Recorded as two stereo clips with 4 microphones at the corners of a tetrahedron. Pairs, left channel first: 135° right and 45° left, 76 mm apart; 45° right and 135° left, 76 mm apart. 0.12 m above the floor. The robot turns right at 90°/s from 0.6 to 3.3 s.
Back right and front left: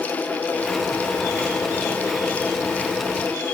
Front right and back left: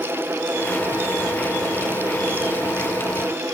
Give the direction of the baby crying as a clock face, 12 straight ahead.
I don't hear a baby crying.